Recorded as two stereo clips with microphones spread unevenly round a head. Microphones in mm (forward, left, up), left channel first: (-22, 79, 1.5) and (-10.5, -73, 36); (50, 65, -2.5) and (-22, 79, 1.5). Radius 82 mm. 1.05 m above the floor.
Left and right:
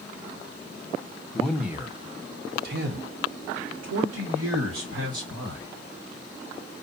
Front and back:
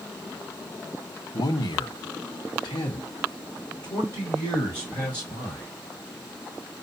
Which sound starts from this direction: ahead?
A man speaking, at 1.3 s.